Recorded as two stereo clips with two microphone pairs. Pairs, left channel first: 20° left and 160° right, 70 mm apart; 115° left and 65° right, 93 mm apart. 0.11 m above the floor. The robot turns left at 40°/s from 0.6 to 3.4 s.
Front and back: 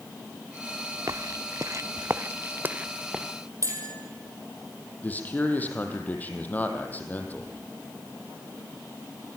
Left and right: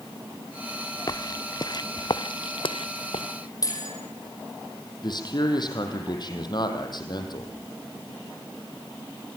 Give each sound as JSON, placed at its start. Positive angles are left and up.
{"t": 1.1, "sound": "footsteps", "azimuth_deg": 160, "distance_m": 0.9}
{"t": 3.6, "sound": "a bell", "azimuth_deg": 160, "distance_m": 4.0}
{"t": 5.0, "sound": "a man speaking", "azimuth_deg": 80, "distance_m": 4.0}